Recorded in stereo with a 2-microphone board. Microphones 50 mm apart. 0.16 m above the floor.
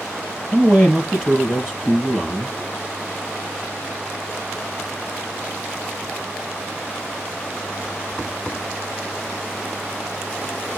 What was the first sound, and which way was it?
A man speaking, 20° left (ahead or behind).